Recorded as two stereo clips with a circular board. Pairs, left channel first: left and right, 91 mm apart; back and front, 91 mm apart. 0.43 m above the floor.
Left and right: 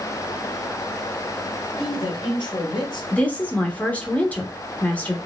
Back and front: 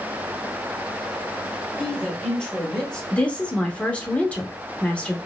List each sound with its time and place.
1.8 s a man speaking: 100° left, 1.8 m
3.1 s a woman speaking: 130° left, 0.9 m